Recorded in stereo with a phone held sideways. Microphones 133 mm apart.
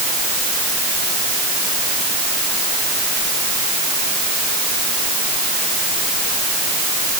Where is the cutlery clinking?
I don't hear cutlery clinking.